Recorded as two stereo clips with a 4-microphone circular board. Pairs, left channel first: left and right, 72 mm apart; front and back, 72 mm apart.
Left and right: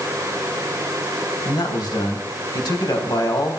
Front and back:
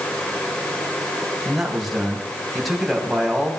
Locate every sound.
1.4 s a man speaking: 95° left, 3.5 m